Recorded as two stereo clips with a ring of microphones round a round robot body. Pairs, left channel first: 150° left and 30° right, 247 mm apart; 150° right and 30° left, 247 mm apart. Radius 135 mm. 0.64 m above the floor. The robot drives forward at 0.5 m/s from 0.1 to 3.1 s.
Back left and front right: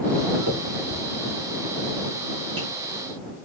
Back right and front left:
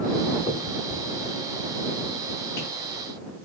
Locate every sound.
0.5 s a finger snap: 90° right, 6 m; by 2.7 s 100° right, 6 m